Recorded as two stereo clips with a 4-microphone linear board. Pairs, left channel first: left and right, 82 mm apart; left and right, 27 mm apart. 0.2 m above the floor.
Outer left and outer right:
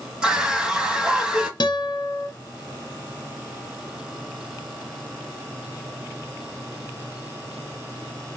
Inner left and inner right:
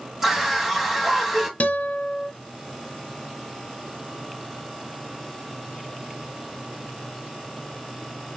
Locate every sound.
0.2 s a scream: 10° right (ahead or behind), 1.0 m
1.6 s a guitar: 65° left (ahead or behind), 0.8 m